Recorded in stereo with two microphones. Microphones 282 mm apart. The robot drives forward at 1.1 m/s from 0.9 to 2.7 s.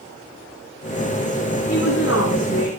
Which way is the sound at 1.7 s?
55° left (ahead or behind).